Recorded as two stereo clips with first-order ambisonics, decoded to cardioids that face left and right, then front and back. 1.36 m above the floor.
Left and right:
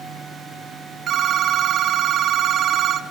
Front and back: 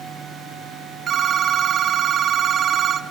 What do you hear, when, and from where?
1.1 s a phone ringing: 135° right, 0.6 m